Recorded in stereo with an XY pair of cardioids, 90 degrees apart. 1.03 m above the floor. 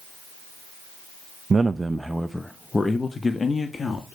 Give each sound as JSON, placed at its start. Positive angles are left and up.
{"t": 1.5, "sound": "a man speaking", "azimuth_deg": -40, "distance_m": 0.6}